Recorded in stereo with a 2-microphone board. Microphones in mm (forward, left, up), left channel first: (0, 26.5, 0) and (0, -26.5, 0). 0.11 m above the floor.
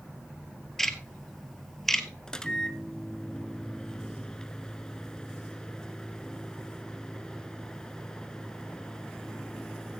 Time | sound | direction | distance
0.8 | ticking | 5° left (ahead or behind) | 1.5 m
2.3 | a microwave | 15° left (ahead or behind) | 1.0 m